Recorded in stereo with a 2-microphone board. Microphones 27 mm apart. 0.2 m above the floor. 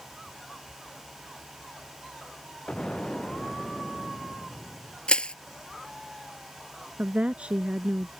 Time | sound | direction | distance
2.7 | an explosion | 35° left (ahead or behind) | ?
5.1 | crushing | 35° left (ahead or behind) | ?
7.0 | a woman speaking | 45° right (ahead or behind) | ?